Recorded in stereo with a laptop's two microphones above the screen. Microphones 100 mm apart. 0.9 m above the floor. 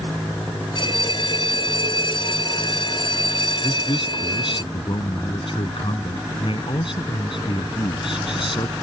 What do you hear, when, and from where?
0.8 s a bell: 50° left (ahead or behind)
3.6 s a man speaking: 60° left (ahead or behind)